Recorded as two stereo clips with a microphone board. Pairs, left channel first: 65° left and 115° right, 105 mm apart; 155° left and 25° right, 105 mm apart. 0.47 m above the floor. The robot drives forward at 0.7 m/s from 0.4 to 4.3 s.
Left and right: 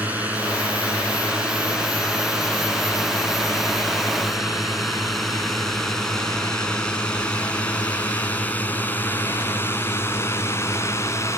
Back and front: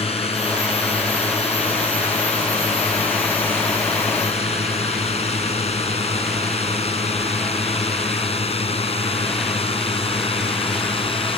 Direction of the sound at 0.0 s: 170° left.